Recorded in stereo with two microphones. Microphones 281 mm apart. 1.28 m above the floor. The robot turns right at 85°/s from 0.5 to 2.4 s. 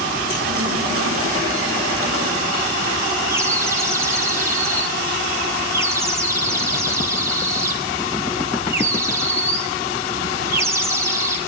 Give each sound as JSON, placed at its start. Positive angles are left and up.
{"t": 3.3, "sound": "a bird", "side_deg": -10, "distance_m": 1.2}